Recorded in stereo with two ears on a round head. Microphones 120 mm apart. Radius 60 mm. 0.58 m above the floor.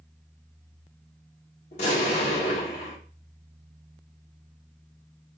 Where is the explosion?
50° left (ahead or behind), 1.6 m.